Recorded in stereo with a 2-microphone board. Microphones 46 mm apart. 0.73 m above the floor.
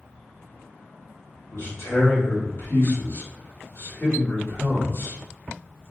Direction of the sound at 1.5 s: 60° left (ahead or behind).